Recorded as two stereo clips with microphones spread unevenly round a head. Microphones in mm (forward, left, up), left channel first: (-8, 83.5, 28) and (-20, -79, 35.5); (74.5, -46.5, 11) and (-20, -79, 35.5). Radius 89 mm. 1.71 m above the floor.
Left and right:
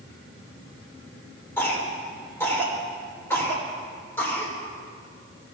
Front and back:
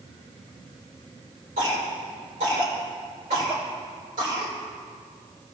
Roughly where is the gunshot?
No gunshot in this recording.